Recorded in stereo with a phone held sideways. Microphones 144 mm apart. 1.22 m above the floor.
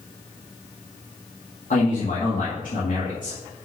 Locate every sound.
1.7 s a man speaking: 70° left (ahead or behind), 2 m